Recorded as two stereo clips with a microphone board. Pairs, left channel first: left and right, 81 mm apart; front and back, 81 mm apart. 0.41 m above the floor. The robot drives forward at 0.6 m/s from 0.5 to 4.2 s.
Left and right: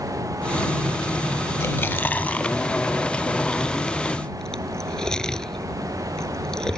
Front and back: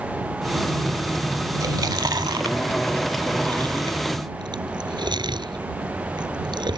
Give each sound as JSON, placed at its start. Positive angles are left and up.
{"t": 1.6, "sound": "chewing", "azimuth_deg": 145}